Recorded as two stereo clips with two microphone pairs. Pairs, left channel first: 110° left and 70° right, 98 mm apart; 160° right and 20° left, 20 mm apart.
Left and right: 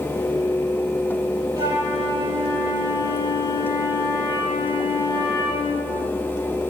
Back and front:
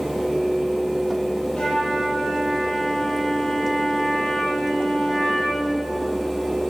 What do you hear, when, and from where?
1.6 s a flute: 125° right, 6.5 m